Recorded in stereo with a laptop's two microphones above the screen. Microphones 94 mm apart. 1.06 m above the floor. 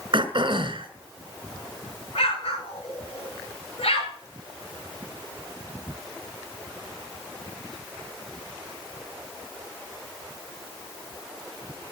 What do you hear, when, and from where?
0.1 s throat clearing: 55° right (ahead or behind), 2 m
2.1 s an explosion: 80° left, 4 m